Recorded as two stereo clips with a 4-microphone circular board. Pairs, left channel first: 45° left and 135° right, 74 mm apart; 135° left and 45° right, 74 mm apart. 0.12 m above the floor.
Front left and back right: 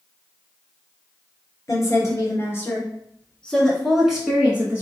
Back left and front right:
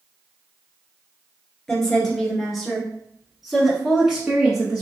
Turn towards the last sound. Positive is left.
turn(degrees=-110)